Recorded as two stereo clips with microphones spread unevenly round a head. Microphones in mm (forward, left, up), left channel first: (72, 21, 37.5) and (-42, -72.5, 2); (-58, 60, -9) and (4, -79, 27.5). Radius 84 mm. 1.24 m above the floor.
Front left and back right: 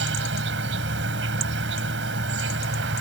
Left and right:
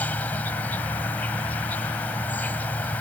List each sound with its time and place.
0.0 s an insect: 160° right